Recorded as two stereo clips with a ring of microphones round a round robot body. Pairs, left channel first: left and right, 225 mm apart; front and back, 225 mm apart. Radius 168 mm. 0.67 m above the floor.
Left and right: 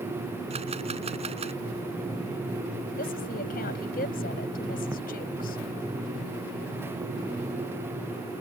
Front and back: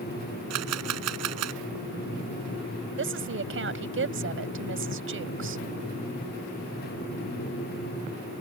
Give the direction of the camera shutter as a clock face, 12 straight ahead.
5 o'clock.